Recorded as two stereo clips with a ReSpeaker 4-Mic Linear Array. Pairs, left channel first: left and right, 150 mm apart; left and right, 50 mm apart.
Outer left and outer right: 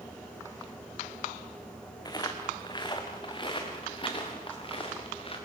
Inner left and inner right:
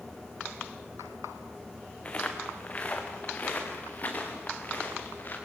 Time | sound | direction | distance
2.0 | footsteps | 25° left (ahead or behind) | 3 m